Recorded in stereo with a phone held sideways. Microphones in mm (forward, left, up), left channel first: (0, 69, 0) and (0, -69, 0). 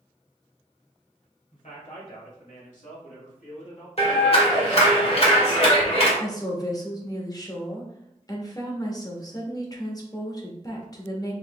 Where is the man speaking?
60° left (ahead or behind), 2 m; by 3.9 s 55° left (ahead or behind), 2 m.